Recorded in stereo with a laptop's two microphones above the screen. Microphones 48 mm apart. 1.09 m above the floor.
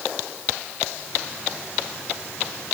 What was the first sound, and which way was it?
Only background noise.